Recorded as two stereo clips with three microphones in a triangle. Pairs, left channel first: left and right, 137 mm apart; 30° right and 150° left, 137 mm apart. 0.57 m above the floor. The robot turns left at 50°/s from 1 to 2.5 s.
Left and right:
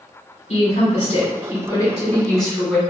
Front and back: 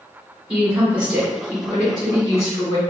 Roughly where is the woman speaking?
Left.